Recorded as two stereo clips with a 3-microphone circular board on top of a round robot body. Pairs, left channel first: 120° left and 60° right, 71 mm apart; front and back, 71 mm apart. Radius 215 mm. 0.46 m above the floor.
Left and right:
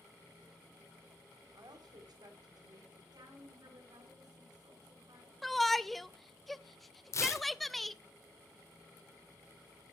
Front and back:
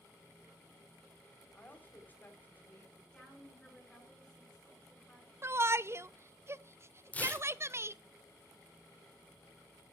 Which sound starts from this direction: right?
A woman speaking, at 3.1 s.